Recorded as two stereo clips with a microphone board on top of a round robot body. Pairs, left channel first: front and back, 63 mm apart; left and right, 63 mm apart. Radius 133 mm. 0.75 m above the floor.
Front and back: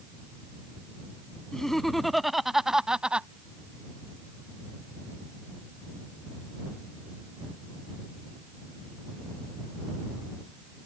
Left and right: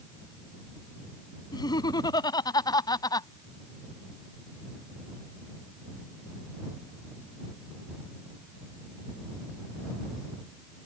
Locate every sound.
1.5 s laughter: 85° left; by 3.3 s 110° left